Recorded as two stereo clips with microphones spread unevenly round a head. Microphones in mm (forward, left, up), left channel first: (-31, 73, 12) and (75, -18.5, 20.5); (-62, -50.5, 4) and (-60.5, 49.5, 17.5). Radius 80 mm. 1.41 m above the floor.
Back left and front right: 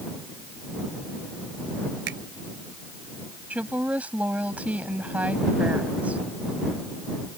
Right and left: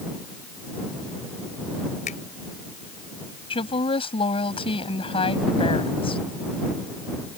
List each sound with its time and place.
2.1 s a finger snap: 70° right
3.5 s a woman speaking: 120° right